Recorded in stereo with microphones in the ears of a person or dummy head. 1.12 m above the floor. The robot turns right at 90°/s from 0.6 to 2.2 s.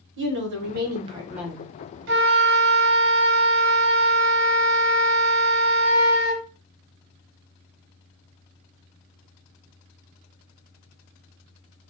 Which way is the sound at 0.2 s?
75° right.